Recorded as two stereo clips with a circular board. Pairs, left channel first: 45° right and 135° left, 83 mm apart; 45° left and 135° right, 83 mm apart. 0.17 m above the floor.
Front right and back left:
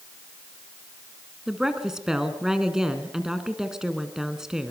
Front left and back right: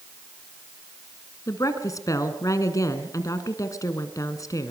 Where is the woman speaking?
55° left, 2.0 m.